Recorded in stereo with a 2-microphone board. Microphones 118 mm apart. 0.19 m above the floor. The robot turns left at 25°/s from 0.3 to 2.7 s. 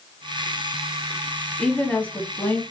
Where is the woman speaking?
10° left (ahead or behind), 1.1 m; by 2.6 s 20° left (ahead or behind), 1.1 m.